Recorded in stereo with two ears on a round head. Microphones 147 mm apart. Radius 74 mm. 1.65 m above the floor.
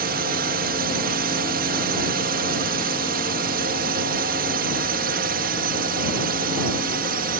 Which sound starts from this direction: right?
A drone, at 0.0 s.